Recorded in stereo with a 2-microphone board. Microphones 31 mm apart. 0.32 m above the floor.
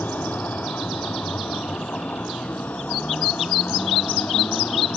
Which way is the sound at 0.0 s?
75° left (ahead or behind).